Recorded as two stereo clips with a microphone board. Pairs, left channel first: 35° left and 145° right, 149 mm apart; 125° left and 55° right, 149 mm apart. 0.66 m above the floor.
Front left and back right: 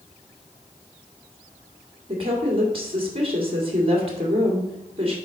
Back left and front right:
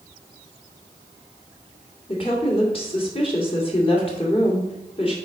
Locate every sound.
2.1 s a woman speaking: 170° left, 2.0 m